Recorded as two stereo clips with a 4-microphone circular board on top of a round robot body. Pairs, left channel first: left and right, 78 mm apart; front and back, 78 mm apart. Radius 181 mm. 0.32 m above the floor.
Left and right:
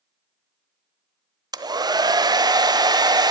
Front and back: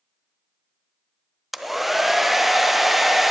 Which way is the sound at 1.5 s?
90° right.